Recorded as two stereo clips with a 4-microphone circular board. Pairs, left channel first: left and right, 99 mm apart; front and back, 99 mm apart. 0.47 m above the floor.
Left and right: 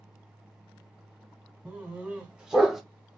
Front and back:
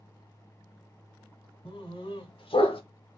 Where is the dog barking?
15° right, 1.2 m; by 2.8 s straight ahead, 0.5 m.